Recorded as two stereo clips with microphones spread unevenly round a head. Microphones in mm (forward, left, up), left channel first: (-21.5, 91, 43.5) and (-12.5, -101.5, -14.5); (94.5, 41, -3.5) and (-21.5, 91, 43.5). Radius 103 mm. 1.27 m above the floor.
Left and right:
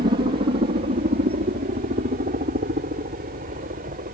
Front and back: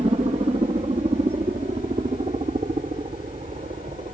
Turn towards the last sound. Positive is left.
turn(degrees=-140)